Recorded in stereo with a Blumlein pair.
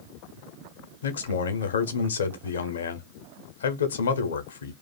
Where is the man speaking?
65° left, 0.8 m.